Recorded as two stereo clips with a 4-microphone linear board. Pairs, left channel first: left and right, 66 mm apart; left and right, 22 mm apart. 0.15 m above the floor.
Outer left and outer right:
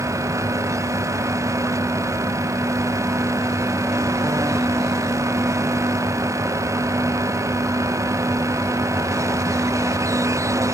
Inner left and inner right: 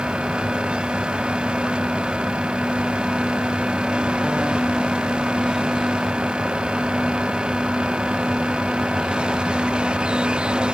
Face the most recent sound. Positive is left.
No sound to turn to.